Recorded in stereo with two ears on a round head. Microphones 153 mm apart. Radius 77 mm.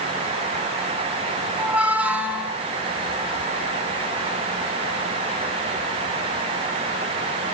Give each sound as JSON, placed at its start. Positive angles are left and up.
{"t": 1.6, "sound": "a squeak", "side_deg": -5, "distance_m": 2.0}